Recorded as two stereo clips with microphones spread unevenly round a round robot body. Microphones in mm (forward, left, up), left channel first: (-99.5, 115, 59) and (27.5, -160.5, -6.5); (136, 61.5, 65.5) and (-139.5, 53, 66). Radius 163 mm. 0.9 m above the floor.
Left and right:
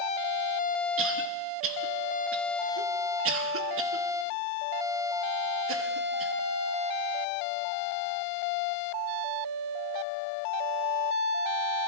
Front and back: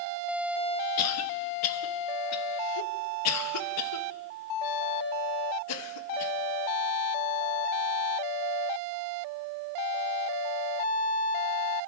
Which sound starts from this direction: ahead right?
A cough, at 1.0 s.